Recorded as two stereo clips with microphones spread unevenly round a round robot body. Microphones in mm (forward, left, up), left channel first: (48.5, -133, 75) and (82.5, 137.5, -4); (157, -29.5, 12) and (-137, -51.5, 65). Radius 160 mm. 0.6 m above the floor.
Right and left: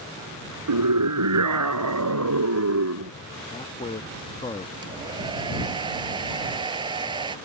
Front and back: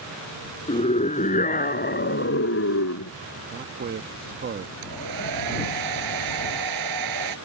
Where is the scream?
75° left; by 3.1 s 50° left.